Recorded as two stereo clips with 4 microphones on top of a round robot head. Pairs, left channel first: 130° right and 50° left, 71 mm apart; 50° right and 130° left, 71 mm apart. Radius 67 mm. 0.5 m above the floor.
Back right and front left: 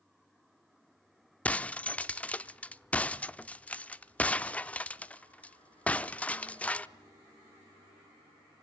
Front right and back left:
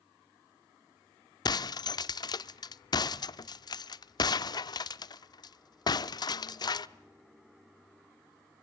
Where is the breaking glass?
60° right, 0.7 m.